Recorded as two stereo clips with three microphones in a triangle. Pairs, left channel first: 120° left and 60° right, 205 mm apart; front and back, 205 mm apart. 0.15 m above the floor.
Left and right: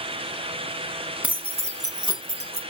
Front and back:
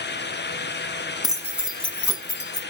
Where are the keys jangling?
140° right, 0.8 m; by 2.6 s 25° right, 0.9 m.